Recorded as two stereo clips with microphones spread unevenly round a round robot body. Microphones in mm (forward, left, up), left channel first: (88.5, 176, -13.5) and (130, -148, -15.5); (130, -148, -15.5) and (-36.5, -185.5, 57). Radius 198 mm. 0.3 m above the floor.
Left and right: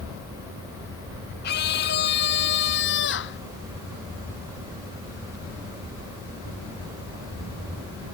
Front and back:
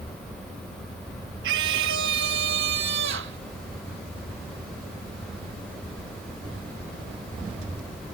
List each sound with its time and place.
1.4 s a scream: 165° left; by 3.4 s 160° left